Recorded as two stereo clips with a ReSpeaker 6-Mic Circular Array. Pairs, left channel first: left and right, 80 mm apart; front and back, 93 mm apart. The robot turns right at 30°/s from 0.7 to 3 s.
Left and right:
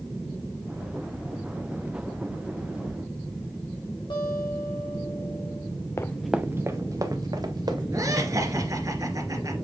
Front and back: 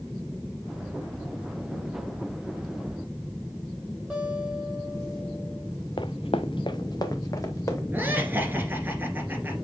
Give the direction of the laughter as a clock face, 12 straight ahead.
4 o'clock.